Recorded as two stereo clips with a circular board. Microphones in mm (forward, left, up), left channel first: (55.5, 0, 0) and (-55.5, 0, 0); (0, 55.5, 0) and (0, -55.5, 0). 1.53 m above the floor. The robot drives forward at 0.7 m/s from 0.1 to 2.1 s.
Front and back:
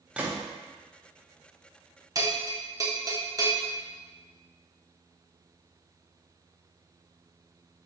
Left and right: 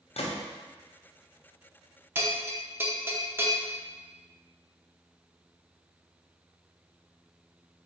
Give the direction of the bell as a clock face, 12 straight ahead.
5 o'clock.